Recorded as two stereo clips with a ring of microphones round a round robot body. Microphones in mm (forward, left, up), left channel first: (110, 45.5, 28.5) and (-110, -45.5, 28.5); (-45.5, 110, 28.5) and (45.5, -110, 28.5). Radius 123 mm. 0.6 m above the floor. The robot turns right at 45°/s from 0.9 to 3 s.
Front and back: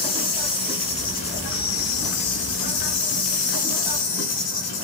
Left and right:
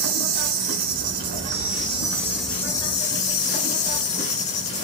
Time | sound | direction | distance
0.0 | an insect | 45° right | 1.1 m